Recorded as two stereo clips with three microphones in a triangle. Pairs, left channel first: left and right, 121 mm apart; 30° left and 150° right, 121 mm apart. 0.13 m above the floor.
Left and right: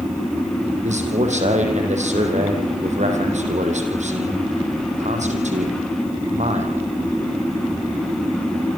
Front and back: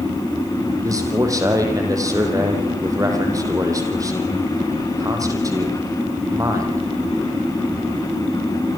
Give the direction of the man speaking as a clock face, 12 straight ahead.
3 o'clock.